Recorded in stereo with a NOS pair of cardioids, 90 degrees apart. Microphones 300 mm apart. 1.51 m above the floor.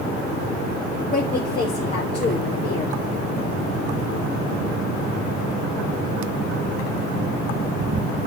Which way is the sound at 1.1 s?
20° left.